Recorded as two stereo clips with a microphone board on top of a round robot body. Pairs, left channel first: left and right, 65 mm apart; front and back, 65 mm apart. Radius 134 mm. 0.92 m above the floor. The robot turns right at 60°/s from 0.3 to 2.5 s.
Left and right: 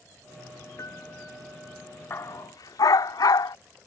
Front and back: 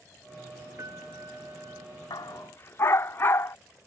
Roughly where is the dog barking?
Ahead left.